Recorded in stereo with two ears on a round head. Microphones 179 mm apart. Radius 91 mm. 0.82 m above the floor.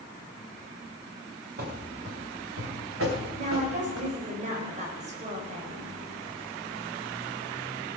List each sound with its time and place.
1.6 s running footsteps: 45° right (ahead or behind), 3.5 m; by 4.1 s 80° right, 4 m
3.4 s a woman speaking: 40° right (ahead or behind), 4 m